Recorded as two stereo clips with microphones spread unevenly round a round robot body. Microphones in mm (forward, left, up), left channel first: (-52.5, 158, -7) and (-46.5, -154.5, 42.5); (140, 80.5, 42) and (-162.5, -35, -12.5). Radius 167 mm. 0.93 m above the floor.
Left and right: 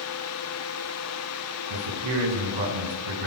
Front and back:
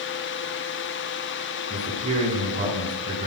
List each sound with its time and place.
1.7 s a man speaking: 85° right, 9 m